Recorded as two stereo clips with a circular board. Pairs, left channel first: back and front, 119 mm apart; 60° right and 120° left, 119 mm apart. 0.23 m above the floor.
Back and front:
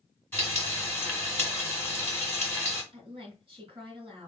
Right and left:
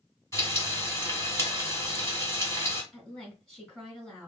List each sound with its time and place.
0.3 s frying: 115° right, 1.7 m
2.9 s a woman speaking: 25° left, 2 m